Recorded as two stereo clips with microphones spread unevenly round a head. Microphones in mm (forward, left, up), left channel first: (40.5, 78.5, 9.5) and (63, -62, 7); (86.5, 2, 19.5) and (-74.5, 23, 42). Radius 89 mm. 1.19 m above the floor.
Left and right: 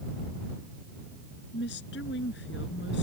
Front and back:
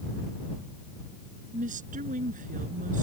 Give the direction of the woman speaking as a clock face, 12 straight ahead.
8 o'clock.